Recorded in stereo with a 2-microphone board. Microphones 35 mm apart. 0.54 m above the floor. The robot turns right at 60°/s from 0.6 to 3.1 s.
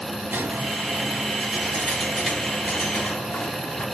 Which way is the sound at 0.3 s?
90° right.